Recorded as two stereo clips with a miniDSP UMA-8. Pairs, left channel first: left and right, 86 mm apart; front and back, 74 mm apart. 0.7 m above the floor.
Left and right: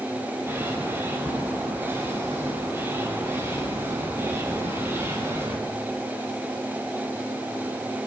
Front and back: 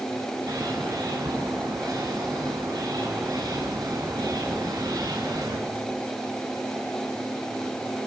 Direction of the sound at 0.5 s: 150° right.